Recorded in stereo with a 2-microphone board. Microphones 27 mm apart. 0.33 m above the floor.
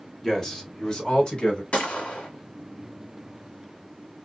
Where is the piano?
I don't hear a piano.